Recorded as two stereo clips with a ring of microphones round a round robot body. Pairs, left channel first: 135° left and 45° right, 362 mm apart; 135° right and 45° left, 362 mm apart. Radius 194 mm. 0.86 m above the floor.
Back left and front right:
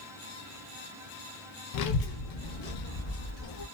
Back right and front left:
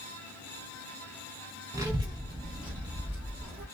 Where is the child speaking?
125° left, 0.6 m; by 3.6 s 120° left, 1.5 m.